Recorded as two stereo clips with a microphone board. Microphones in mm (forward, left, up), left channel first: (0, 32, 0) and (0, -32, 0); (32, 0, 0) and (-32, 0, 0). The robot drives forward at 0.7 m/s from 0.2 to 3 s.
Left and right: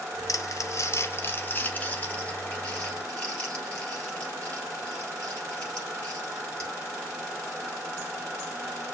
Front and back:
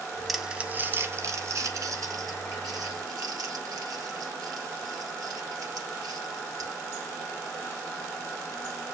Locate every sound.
0.3 s crumpling: 90° left, 0.6 m; by 6.7 s 165° left, 2 m